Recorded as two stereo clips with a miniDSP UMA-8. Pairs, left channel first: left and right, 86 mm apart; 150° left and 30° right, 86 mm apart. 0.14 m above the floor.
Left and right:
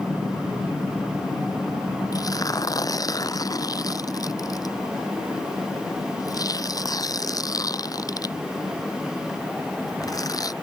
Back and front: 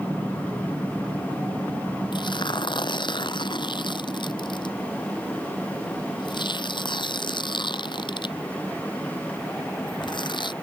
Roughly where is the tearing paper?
Behind left.